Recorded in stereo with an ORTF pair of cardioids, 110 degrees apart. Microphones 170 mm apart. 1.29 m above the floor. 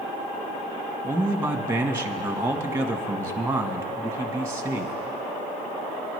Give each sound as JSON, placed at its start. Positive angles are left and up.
{"t": 1.0, "sound": "a man speaking", "azimuth_deg": -15, "distance_m": 1.3}